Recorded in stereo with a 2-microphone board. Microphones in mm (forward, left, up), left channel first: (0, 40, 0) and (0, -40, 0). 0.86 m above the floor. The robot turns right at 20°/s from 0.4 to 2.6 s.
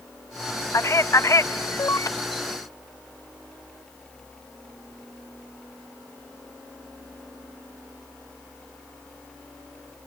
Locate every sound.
0.7 s a man speaking: 40° left (ahead or behind), 0.6 m; by 2.1 s 45° left (ahead or behind), 0.6 m